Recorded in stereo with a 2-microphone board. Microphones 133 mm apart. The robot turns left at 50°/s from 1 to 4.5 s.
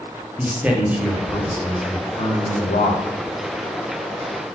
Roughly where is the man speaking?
Behind.